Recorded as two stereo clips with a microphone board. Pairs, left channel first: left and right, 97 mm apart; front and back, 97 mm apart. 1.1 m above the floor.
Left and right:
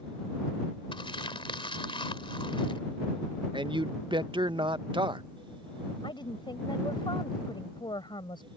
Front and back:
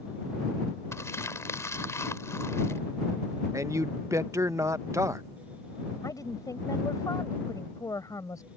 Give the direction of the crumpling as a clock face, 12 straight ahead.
10 o'clock.